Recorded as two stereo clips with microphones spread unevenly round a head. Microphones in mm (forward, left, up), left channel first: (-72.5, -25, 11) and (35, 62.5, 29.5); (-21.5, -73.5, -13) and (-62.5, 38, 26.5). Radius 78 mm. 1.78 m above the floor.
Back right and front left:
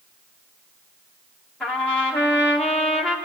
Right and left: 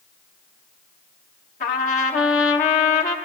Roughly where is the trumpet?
Ahead right.